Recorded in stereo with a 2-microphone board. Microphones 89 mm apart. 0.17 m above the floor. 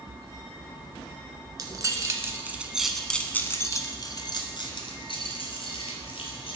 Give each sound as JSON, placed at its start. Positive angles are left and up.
{"t": 1.6, "sound": "keys jangling", "side_deg": -45, "distance_m": 1.3}